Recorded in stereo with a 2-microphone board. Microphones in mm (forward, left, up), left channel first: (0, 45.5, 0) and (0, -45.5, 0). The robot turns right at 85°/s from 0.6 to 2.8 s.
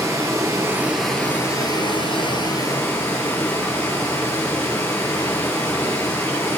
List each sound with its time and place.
0.0 s running water: 40° right, 2 m; by 6.6 s 150° left, 2 m